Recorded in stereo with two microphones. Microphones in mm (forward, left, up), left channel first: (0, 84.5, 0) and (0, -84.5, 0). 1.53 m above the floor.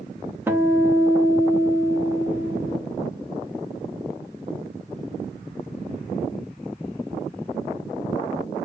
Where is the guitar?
15° right (ahead or behind), 1.0 m.